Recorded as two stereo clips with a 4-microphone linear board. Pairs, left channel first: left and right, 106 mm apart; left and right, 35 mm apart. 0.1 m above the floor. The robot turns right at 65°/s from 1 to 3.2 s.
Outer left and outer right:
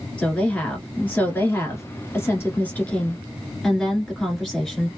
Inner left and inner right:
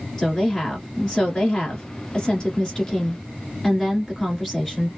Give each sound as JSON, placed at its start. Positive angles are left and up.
{"t": 0.2, "sound": "a woman speaking", "side_deg": 15, "distance_m": 1.4}